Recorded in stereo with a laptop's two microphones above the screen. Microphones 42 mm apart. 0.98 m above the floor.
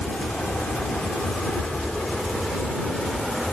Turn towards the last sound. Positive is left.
turn(degrees=10)  # may be behind; listen again after turning